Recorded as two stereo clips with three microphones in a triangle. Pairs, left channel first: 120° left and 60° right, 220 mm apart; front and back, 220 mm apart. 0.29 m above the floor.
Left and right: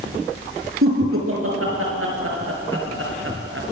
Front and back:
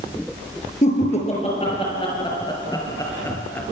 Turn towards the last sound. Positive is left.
turn(degrees=-80)